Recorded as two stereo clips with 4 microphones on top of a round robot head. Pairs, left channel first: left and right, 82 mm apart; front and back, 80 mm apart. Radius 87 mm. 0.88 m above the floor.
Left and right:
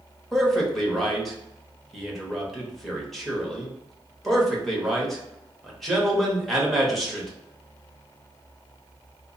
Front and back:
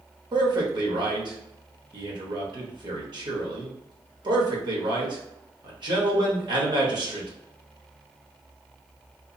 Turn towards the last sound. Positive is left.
turn(degrees=180)